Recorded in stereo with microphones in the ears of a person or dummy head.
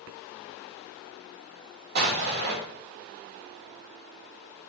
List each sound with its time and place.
1.9 s an explosion: 55° right (ahead or behind), 3.5 m